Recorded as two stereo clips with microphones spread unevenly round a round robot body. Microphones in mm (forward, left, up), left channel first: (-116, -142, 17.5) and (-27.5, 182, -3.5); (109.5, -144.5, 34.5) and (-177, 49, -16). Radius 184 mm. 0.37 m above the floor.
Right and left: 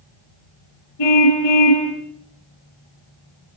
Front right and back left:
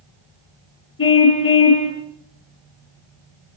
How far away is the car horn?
About 6.5 m.